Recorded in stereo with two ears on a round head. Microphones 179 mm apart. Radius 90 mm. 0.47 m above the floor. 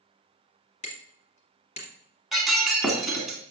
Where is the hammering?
35° left (ahead or behind), 2.5 m.